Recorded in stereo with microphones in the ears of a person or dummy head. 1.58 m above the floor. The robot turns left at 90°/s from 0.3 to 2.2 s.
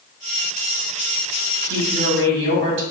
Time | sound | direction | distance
1.6 | a woman speaking | 10° right | 1.5 m